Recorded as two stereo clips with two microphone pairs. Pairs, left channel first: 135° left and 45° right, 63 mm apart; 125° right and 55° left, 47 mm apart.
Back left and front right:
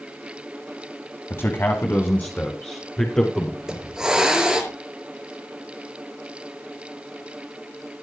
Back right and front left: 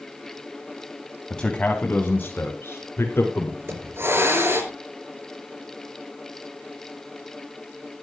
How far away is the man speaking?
About 1.9 m.